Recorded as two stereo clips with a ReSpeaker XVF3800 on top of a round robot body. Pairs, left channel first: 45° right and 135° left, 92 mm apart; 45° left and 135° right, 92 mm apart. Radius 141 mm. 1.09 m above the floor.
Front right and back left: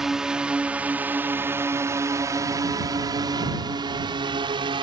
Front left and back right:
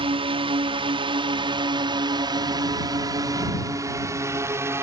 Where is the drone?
140° right; by 4.8 s 165° left.